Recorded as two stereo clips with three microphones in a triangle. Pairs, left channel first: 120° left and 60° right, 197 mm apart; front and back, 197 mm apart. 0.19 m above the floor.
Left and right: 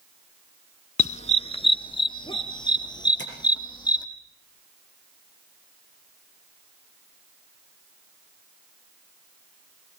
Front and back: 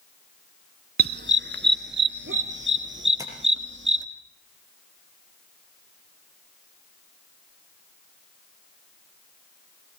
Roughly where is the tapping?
Left.